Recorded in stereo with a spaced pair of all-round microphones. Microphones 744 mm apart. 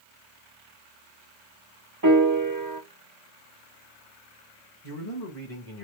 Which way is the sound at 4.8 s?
35° left (ahead or behind).